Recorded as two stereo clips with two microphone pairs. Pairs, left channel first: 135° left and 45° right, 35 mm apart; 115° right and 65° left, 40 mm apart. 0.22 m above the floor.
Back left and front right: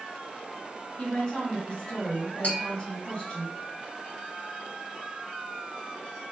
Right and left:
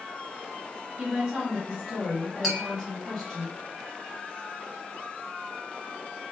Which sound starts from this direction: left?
A woman speaking, at 1.0 s.